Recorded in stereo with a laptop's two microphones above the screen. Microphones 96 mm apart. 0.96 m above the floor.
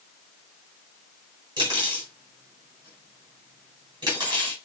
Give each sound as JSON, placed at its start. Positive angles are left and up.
{"t": 1.6, "sound": "cutlery clinking", "side_deg": -55, "distance_m": 2.5}